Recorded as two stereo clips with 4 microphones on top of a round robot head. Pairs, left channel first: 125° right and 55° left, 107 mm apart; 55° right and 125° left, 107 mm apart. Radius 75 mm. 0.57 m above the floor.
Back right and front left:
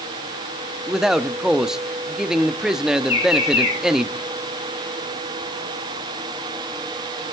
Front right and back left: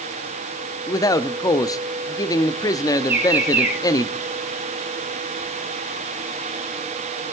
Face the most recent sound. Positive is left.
turn(degrees=-160)